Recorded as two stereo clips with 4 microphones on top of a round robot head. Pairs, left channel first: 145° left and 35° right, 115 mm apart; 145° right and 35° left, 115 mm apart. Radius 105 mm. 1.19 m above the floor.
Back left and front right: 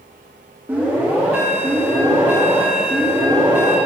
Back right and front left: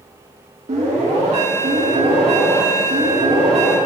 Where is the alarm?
40° left, 4 m.